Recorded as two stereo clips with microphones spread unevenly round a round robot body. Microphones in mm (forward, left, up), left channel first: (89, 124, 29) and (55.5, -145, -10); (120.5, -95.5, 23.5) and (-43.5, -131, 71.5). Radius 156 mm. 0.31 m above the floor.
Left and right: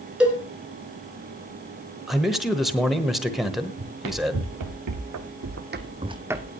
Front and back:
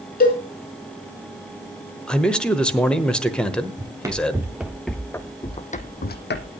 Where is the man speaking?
25° right, 1.1 m.